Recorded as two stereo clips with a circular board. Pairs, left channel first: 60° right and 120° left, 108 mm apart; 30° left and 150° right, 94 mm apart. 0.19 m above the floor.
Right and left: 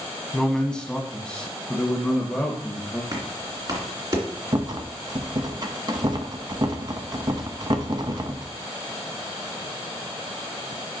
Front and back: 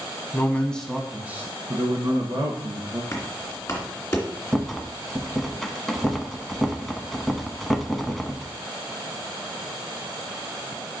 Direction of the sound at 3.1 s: 85° left.